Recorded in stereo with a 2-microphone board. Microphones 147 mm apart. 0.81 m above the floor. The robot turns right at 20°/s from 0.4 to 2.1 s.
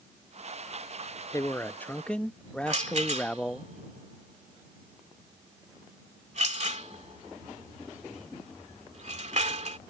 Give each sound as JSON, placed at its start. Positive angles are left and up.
{"t": 1.3, "sound": "a man speaking", "side_deg": 20}
{"t": 2.7, "sound": "a rattle", "side_deg": -50}